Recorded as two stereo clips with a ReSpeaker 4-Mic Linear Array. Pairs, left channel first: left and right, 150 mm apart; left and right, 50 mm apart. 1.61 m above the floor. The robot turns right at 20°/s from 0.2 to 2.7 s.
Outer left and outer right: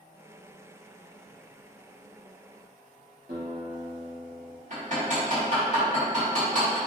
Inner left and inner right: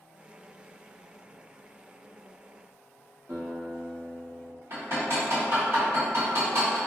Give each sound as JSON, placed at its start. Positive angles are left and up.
{"t": 3.3, "sound": "a guitar", "side_deg": -80, "distance_m": 1.1}
{"t": 4.7, "sound": "hammering", "side_deg": -55, "distance_m": 1.7}